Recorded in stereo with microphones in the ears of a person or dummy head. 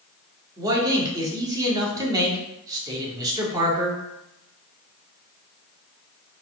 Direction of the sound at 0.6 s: 20° right (ahead or behind).